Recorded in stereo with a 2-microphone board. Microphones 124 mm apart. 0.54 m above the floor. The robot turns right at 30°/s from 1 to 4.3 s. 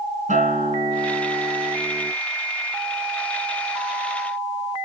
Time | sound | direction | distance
0.3 | a guitar | 90° right | 4 m